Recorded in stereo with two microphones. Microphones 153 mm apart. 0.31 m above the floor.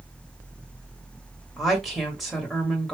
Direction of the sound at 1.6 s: Centre (ahead or behind).